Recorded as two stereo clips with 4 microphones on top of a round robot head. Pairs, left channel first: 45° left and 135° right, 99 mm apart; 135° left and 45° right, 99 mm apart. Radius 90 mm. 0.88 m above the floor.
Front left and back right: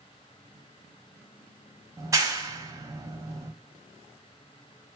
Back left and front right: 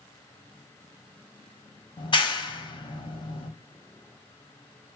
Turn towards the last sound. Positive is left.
turn(degrees=170)